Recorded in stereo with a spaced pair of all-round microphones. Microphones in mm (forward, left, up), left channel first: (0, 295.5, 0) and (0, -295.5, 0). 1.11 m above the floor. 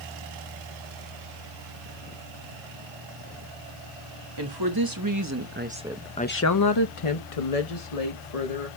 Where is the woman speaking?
45° right (ahead or behind), 2.0 m; by 8.7 s 85° left, 2 m.